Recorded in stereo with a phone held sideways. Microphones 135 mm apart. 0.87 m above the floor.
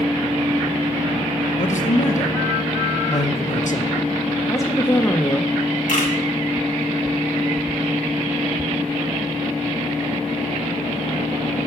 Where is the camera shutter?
80° left, 2 m.